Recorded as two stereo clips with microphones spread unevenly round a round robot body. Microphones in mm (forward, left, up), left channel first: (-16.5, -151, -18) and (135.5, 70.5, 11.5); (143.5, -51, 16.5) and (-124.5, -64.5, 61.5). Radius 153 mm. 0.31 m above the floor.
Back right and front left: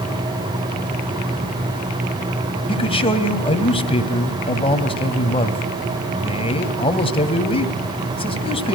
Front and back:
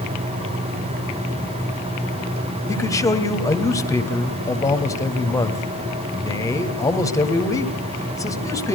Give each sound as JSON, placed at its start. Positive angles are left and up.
{"t": 2.7, "sound": "a man speaking", "azimuth_deg": -65, "distance_m": 2.0}